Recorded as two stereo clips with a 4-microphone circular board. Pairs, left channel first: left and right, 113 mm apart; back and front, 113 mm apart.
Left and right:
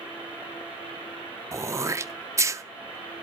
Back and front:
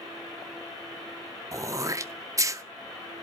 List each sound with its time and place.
1.5 s throat clearing: 45° right, 0.5 m